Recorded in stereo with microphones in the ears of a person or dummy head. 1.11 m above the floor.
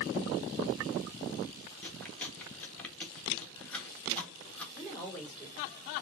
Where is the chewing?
10° left (ahead or behind), 1.3 m.